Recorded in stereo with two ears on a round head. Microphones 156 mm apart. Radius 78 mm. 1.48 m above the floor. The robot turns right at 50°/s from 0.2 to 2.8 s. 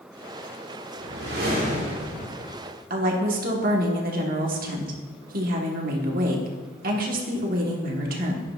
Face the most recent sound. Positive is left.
turn(degrees=-50)  # may be behind; listen again after turning